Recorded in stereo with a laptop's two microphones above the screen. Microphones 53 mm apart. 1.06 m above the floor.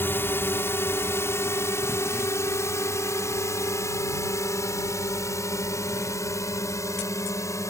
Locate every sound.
0.0 s a drone: 45° left (ahead or behind); by 7.7 s 75° left (ahead or behind)